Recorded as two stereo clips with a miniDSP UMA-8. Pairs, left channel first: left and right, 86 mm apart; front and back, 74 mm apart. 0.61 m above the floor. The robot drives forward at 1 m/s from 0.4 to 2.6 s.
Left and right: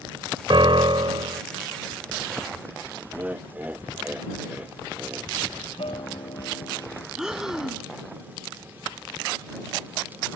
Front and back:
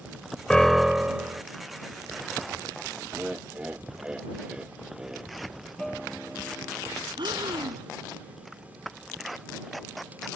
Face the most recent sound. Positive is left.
turn(degrees=-175)